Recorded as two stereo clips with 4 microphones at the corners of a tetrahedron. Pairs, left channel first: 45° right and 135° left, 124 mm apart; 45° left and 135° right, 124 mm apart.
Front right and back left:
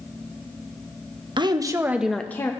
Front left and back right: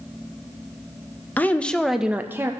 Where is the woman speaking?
115° left, 0.6 m; by 2.5 s 85° right, 0.5 m.